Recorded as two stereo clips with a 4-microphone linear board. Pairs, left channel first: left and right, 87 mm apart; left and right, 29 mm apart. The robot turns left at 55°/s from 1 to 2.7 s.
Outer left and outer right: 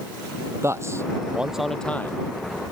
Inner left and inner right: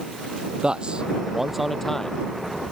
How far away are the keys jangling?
No keys jangling in this recording.